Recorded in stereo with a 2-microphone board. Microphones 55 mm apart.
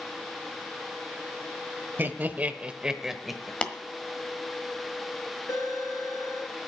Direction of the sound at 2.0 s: 40° right (ahead or behind).